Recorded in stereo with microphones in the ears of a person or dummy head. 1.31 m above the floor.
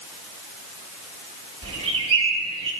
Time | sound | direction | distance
1.6 | a bird | 30° right (ahead or behind) | 2.5 m